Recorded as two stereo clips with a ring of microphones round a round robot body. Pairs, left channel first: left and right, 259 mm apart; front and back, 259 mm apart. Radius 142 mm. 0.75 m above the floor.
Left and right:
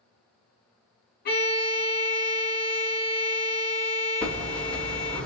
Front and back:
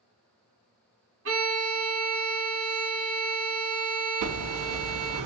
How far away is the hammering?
About 0.6 m.